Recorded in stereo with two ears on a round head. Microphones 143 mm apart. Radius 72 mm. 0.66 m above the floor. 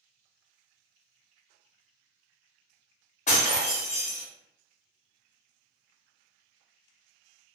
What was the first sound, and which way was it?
Breaking glass, 45° left (ahead or behind).